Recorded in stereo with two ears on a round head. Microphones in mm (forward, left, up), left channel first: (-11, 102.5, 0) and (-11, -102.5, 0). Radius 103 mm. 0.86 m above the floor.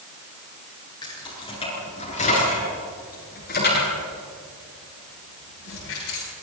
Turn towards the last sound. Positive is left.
turn(degrees=65)  # may be behind; listen again after turning